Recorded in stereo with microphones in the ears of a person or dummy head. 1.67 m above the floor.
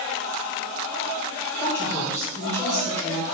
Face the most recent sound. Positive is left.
turn(degrees=15)  # may be behind; listen again after turning